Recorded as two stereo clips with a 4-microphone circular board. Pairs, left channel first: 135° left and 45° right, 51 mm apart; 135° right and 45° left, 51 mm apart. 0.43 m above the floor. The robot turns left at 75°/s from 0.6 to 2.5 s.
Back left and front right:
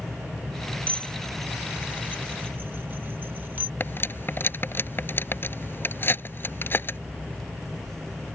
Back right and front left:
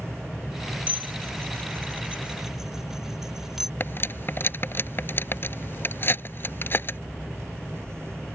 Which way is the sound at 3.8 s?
Straight behind.